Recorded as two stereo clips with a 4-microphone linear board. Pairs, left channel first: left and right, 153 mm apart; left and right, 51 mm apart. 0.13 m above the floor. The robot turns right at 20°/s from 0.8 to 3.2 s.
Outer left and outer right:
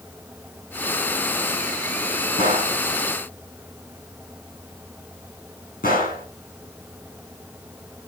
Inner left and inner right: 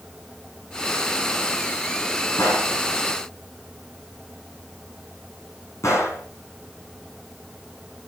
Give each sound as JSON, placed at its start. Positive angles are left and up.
{"t": 2.4, "sound": "a gunshot", "side_deg": 55, "distance_m": 3.0}